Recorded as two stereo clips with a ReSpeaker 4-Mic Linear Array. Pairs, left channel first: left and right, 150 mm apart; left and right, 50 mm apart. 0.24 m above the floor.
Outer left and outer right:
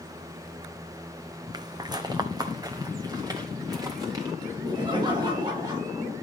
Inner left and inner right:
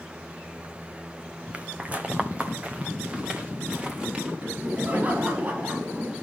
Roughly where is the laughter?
Right.